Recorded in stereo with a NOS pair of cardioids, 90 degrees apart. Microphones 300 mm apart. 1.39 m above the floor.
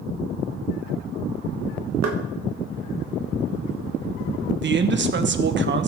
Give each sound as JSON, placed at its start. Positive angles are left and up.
{"t": 2.0, "sound": "knocking", "azimuth_deg": -60, "distance_m": 1.5}
{"t": 4.6, "sound": "a man speaking", "azimuth_deg": -35, "distance_m": 1.1}